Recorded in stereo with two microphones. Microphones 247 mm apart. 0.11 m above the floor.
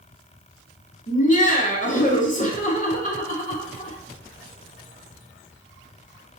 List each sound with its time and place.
1.1 s laughter: 35° left (ahead or behind), 1.2 m